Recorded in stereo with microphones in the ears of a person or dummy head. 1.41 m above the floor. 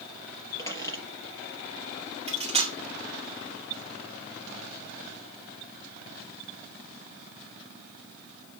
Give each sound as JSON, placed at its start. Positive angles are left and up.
{"t": 0.6, "sound": "a squeak", "side_deg": 15, "distance_m": 4.5}
{"t": 2.3, "sound": "cutlery clinking", "side_deg": -30, "distance_m": 2.5}